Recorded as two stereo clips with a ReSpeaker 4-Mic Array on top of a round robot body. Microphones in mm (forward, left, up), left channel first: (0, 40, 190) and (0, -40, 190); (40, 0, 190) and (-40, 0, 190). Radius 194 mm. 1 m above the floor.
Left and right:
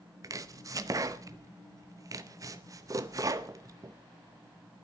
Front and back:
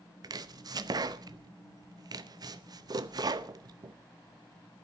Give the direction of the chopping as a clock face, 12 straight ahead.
5 o'clock.